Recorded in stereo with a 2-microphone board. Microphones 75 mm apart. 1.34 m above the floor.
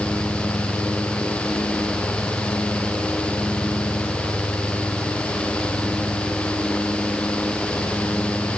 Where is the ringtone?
No ringtone in this recording.